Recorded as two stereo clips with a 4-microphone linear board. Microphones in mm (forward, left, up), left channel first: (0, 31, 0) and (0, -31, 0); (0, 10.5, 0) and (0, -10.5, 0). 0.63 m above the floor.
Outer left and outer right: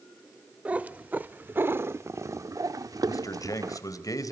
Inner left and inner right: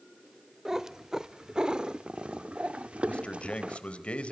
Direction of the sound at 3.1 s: 70° left (ahead or behind).